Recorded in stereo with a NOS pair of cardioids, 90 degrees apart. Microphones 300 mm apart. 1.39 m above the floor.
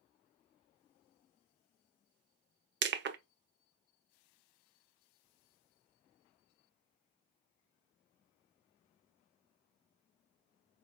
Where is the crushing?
40° right, 0.6 m.